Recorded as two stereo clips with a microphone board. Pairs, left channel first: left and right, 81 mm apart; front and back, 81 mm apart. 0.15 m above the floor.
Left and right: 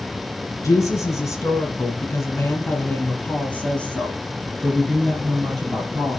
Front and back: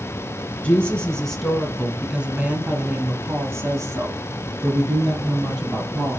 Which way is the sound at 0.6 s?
65° left.